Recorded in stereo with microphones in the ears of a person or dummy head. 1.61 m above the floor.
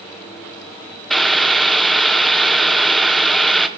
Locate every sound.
1.1 s boiling: 5° left (ahead or behind), 1.0 m